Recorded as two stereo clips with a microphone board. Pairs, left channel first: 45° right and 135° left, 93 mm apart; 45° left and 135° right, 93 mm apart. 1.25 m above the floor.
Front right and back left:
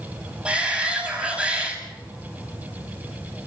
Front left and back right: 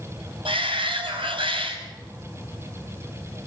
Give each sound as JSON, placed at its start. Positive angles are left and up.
{"t": 0.5, "sound": "a shout", "azimuth_deg": -150, "distance_m": 6.5}